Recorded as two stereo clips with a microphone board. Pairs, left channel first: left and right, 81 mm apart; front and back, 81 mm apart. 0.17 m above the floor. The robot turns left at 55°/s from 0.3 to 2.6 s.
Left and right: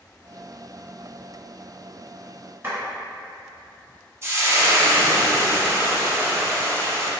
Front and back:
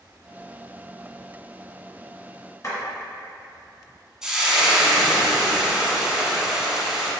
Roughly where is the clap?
Ahead right.